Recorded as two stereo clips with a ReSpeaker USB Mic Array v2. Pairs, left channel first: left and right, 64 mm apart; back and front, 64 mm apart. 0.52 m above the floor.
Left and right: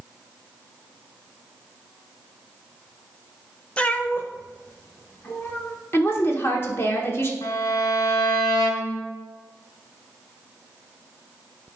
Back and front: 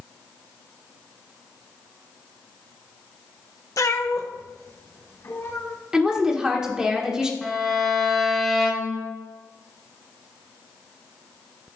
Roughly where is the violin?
Left.